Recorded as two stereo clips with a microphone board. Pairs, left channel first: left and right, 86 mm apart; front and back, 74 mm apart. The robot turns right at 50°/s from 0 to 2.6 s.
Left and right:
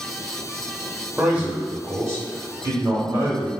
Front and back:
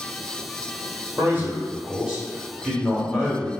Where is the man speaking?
160° right, 1.0 m; by 3.5 s 85° right, 1.0 m.